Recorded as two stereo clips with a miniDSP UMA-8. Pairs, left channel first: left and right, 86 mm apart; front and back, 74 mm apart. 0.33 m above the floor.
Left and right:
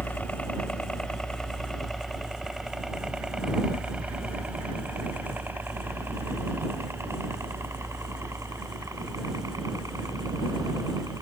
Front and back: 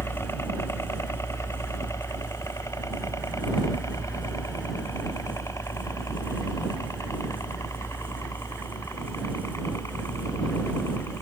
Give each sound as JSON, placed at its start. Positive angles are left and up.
{"t": 0.0, "sound": "a helicopter", "azimuth_deg": 25}